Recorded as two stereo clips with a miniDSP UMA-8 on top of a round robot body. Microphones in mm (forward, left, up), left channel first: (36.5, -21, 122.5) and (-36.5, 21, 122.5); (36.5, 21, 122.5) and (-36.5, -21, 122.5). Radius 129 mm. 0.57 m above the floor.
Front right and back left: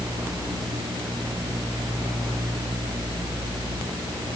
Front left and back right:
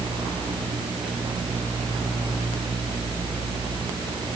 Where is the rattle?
No rattle in this recording.